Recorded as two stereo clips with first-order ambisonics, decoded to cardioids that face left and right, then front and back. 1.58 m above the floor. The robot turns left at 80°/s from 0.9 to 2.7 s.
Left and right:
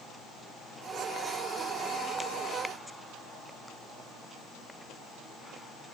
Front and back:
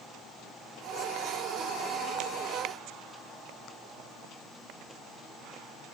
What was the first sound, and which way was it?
Only background noise.